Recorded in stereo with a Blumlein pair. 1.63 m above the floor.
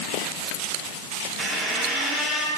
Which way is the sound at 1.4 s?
Straight ahead.